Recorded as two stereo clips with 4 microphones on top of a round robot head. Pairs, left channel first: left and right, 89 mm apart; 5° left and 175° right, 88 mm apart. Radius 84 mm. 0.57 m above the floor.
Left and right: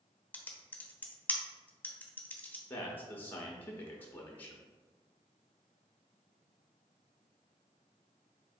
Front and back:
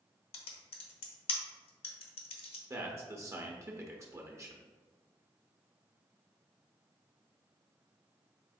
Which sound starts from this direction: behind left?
A man speaking, at 2.7 s.